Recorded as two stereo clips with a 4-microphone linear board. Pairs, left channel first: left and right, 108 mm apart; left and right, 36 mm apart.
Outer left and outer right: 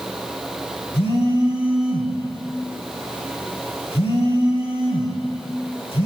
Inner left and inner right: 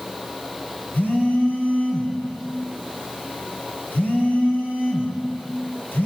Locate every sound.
0.9 s a phone buzzing: 65° left (ahead or behind), 5 m